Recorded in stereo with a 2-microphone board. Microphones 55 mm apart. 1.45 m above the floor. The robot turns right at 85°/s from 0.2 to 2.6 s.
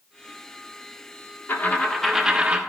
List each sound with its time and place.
1.5 s a dropped coin: 130° left, 1.2 m; by 2.6 s 140° right, 1.2 m